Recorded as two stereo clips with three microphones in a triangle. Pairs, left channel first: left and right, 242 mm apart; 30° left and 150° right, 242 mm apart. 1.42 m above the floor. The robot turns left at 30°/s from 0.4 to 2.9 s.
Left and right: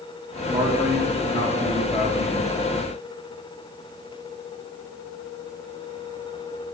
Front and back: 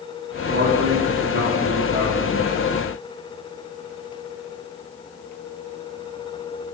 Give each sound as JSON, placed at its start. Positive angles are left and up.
{"t": 0.5, "sound": "a man speaking", "azimuth_deg": -160, "distance_m": 3.5}